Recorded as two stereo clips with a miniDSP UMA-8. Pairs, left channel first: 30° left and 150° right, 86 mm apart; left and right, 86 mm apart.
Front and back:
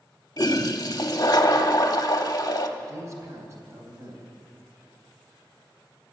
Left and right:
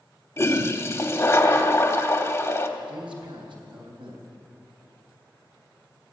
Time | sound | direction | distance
0.4 | a toilet flushing | 45° left | 1.1 m
2.8 | a man speaking | 95° right | 3.5 m